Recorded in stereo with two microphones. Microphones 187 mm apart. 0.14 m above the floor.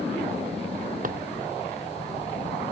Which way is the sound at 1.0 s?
50° right (ahead or behind).